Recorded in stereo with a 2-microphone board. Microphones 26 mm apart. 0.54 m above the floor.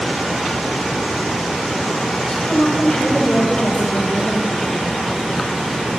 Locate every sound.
2.3 s a woman speaking: 25° left (ahead or behind), 3 m